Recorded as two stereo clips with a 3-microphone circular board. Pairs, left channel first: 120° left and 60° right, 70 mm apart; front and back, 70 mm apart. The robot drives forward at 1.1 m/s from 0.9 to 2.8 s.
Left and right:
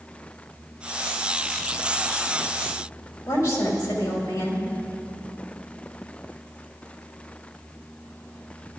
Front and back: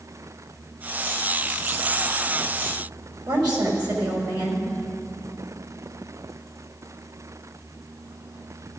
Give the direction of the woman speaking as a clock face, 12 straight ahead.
6 o'clock.